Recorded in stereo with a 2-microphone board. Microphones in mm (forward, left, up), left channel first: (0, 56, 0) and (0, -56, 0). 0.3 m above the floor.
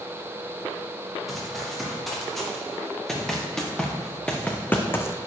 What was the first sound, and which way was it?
Running footsteps, centre (ahead or behind).